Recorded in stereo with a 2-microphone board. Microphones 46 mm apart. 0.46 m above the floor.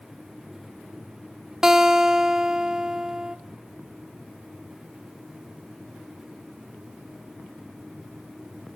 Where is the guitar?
15° right (ahead or behind), 0.6 m.